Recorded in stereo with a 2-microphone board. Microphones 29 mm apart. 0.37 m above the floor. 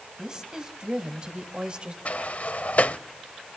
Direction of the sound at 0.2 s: 25° right (ahead or behind).